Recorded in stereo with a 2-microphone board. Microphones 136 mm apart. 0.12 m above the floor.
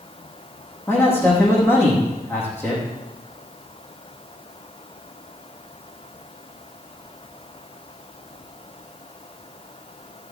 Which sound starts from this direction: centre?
A man speaking, at 0.9 s.